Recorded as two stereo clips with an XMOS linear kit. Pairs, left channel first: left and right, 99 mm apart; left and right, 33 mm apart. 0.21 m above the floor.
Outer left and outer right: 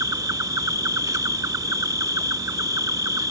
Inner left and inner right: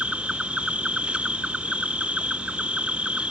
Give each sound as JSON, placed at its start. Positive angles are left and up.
{"t": 0.0, "sound": "an insect", "side_deg": -40}